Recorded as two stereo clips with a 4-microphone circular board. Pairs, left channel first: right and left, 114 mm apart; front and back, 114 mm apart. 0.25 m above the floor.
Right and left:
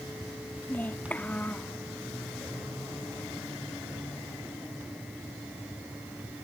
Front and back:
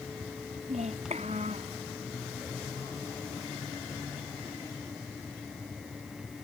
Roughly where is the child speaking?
Behind.